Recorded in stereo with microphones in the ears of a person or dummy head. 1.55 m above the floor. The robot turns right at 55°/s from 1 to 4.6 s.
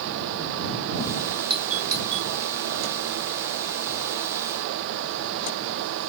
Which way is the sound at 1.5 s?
30° right (ahead or behind).